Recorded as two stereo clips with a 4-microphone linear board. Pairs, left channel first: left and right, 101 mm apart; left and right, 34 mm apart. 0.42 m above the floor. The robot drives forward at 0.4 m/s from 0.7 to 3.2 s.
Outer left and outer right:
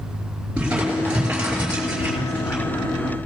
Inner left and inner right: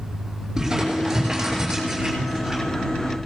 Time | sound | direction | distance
0.6 | crumpling | 10° right (ahead or behind) | 6 m